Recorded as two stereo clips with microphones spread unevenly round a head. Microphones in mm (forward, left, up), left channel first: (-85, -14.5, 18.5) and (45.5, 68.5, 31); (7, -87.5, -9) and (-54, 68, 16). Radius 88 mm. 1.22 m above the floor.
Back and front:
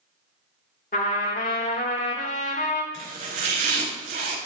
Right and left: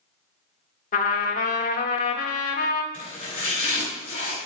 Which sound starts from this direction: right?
A trumpet, at 0.9 s.